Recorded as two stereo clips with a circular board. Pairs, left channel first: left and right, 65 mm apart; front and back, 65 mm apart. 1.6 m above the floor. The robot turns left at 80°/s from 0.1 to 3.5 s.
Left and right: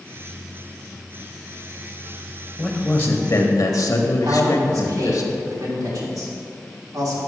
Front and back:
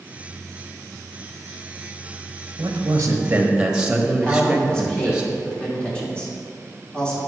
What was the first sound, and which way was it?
A man speaking, straight behind.